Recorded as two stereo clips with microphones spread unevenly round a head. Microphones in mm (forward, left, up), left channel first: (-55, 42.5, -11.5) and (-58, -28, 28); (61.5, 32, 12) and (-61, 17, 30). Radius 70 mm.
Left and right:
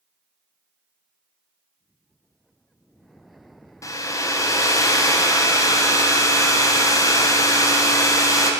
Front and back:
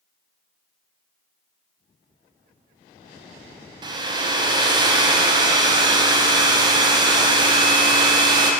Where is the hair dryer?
130° left, 0.6 m.